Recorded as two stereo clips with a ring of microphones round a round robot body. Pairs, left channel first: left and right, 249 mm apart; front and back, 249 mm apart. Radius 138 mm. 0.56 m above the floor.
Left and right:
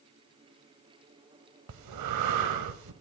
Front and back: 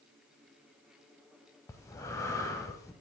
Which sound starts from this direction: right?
Breathing, at 1.7 s.